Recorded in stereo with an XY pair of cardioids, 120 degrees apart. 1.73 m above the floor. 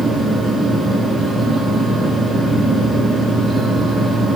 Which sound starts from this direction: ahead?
A fan, at 0.0 s.